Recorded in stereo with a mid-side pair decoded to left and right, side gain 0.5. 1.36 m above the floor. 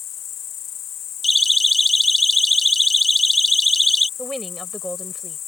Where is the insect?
60° left.